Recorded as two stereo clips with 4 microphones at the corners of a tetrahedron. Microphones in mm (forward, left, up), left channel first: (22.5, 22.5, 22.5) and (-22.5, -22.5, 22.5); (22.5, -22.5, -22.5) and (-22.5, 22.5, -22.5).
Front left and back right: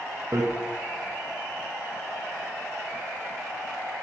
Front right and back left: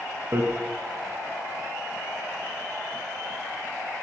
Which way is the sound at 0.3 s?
175° right.